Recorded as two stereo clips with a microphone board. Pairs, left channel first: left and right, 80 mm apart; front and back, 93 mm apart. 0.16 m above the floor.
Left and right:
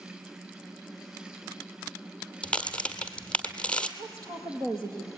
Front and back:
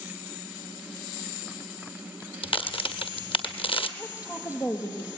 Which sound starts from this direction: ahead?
A crack, at 2.4 s.